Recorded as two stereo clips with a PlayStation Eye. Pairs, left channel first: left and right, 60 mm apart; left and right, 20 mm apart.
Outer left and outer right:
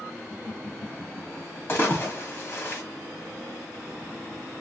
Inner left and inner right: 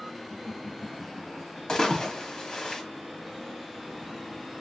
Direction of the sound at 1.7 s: 40° left (ahead or behind).